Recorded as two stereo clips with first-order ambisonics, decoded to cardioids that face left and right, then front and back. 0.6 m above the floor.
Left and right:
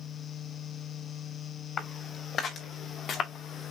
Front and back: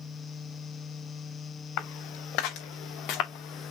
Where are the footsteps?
25° left, 4 m; by 3.7 s 35° left, 2.5 m.